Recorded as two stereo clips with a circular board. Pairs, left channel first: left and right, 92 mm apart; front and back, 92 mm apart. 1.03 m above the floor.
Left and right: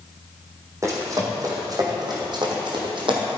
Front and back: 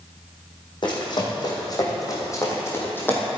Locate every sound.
0.8 s running footsteps: 35° right, 3.5 m; by 3.3 s 70° right, 2.5 m